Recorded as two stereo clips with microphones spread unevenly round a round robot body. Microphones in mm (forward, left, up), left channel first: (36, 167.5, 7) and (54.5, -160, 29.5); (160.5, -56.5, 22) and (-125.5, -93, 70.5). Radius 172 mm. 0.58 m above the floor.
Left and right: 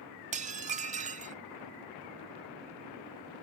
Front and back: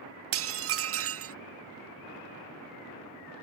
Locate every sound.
0.3 s dishes clattering: 150° right